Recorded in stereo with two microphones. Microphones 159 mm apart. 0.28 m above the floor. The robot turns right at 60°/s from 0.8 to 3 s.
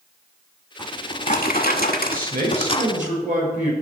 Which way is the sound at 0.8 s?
30° left.